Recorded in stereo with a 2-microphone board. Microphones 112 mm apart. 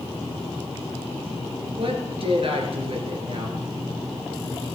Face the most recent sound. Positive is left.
turn(degrees=-60)  # may be behind; listen again after turning